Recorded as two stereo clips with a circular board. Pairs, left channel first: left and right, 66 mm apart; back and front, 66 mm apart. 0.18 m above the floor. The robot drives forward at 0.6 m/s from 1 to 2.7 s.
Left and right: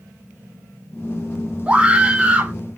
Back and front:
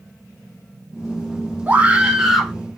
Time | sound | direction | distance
1.7 | a scream | 35° right | 1.1 m